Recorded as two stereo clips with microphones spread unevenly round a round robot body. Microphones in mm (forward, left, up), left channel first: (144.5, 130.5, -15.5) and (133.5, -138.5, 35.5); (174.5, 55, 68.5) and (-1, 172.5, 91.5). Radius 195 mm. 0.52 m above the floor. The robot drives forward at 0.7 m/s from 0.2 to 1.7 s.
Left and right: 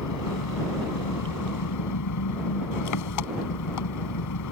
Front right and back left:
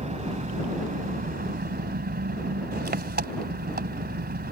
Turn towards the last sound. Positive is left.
turn(degrees=100)